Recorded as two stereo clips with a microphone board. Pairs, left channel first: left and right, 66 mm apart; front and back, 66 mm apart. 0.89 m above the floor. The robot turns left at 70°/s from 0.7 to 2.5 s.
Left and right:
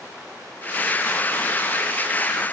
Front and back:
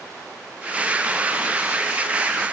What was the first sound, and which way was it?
Only background noise.